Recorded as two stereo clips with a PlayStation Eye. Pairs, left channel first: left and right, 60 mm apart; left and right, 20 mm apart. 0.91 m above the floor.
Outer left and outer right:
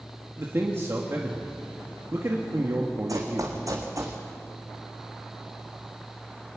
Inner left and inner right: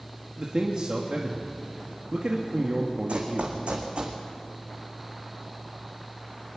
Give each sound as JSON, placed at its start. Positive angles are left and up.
{"t": 0.4, "sound": "a man speaking", "side_deg": -45, "distance_m": 1.5}
{"t": 3.1, "sound": "running footsteps", "side_deg": -65, "distance_m": 3.0}